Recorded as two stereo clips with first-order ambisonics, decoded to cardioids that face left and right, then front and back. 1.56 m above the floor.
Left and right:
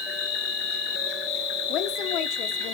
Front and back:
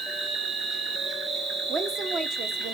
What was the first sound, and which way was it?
An insect, 105° left.